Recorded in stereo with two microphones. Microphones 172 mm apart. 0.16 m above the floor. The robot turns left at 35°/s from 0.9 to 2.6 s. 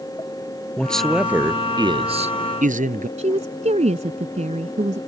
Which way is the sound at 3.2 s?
40° right (ahead or behind).